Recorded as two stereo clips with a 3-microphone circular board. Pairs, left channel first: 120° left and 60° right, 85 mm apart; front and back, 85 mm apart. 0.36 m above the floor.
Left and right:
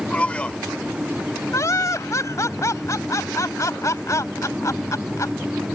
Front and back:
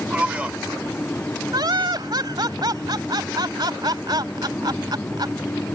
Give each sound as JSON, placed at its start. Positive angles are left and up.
{"t": 0.1, "sound": "a man speaking", "azimuth_deg": 150}
{"t": 1.5, "sound": "laughter", "azimuth_deg": 165}